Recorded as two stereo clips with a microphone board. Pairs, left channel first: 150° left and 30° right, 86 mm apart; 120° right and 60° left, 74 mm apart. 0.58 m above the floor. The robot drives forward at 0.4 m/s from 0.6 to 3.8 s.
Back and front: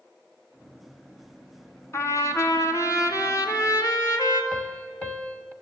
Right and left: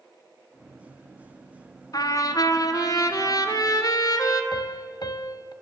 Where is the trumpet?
155° right, 1.7 m; by 4.4 s 160° right, 2.5 m.